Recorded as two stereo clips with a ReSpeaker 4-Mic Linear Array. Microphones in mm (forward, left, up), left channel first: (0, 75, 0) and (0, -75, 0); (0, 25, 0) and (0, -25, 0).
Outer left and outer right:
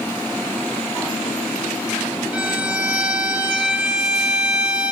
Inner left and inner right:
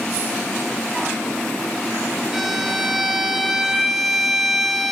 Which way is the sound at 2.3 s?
5° right (ahead or behind).